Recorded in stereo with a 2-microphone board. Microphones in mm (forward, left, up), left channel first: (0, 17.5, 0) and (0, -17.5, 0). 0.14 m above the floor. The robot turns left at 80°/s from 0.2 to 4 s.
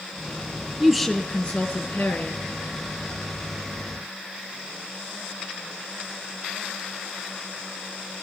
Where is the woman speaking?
165° right, 2.5 m; by 2.4 s 65° left, 2.5 m.